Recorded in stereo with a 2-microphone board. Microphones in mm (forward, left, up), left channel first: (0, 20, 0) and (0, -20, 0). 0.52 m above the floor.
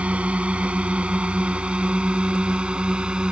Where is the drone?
30° right (ahead or behind); by 3.3 s 25° right (ahead or behind).